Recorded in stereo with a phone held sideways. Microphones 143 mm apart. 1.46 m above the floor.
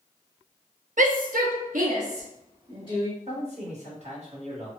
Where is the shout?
60° right (ahead or behind), 0.6 m; by 3.1 s 40° right (ahead or behind), 1.5 m.